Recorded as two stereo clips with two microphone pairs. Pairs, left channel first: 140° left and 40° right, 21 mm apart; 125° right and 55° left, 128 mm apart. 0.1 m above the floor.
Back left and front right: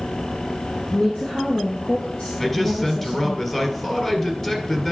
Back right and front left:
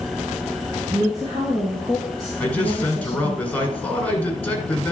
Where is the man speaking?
175° left, 1.6 m.